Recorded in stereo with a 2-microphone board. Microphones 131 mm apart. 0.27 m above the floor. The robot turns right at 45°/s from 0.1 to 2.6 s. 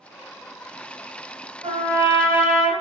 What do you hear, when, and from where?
1.6 s a trumpet: 65° right, 1.1 m; by 2.7 s 25° right, 1.1 m